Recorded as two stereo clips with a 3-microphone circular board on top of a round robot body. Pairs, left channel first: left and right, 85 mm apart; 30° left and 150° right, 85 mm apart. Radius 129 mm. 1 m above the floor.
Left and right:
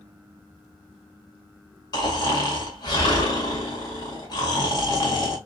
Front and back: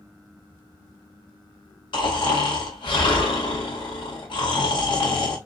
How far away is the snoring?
About 1.9 m.